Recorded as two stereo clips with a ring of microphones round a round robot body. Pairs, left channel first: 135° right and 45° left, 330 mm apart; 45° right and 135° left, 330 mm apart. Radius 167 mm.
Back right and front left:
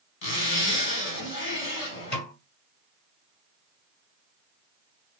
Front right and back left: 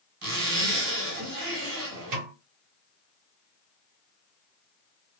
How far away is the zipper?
About 2.5 m.